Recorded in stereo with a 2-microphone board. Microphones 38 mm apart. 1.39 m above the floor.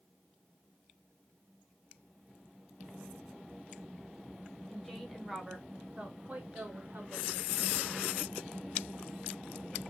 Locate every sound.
4.7 s a woman speaking: centre (ahead or behind), 1.3 m; by 8.3 s 75° right (ahead or behind), 1.7 m